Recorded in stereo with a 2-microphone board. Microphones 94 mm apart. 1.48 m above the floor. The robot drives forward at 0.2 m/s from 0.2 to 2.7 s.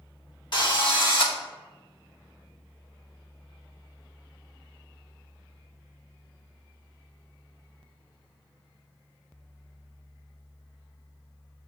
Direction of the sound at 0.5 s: 55° left (ahead or behind).